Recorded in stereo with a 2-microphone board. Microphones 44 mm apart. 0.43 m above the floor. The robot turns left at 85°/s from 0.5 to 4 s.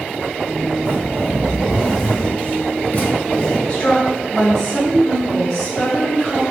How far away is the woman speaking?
About 0.9 m.